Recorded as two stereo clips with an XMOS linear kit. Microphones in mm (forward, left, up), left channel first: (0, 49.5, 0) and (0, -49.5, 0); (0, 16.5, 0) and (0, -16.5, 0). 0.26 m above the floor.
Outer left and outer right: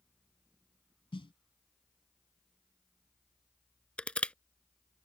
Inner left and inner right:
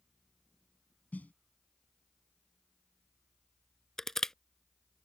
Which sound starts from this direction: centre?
Crushing, at 4.0 s.